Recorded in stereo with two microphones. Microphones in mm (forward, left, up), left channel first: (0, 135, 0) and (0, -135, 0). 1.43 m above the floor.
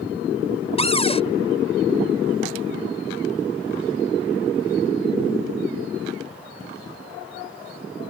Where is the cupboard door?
20° left (ahead or behind).